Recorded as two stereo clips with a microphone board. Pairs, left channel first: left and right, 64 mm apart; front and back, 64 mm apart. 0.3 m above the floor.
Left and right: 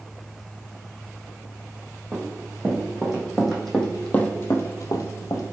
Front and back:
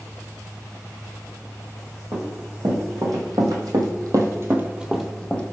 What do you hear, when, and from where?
2.1 s running footsteps: 165° right, 1.8 m; by 5.4 s 70° left, 0.8 m